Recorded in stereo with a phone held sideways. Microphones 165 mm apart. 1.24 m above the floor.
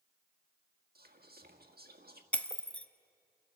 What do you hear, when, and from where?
0.9 s whispering: 70° right (ahead or behind), 1.8 m
2.3 s breaking glass: 10° left (ahead or behind), 0.7 m